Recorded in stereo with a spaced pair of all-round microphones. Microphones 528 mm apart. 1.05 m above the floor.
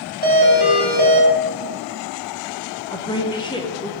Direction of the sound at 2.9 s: 10° left (ahead or behind).